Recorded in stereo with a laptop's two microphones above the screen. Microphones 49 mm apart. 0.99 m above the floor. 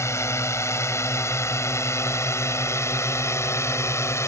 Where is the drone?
80° left; by 4.3 s 75° left (ahead or behind).